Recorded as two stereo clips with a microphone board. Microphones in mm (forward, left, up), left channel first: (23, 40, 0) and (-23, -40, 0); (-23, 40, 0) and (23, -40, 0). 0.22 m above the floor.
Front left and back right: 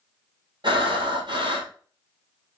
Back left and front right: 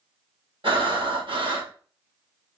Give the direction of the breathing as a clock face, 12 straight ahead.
3 o'clock.